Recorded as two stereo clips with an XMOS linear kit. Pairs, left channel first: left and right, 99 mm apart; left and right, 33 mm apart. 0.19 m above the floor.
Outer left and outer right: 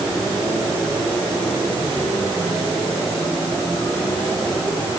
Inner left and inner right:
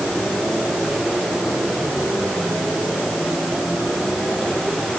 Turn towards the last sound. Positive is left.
No sound to turn to.